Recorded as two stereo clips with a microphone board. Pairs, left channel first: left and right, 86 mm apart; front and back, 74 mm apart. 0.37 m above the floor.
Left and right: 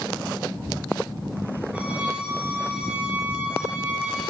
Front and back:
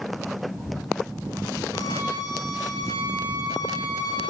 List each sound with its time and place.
1.7 s a violin: 15° right, 5 m